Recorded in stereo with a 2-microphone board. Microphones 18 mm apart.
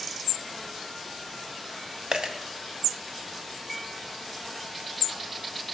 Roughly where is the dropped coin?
Right.